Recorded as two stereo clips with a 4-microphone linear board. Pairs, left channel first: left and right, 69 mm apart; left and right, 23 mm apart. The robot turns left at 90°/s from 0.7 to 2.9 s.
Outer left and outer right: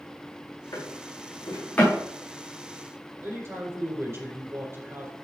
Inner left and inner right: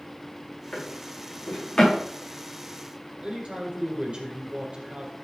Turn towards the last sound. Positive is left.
turn(degrees=-40)  # may be behind; listen again after turning